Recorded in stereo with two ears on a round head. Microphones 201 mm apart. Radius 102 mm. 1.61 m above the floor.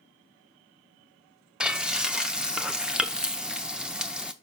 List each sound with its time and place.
1.6 s frying: 5° right (ahead or behind), 0.5 m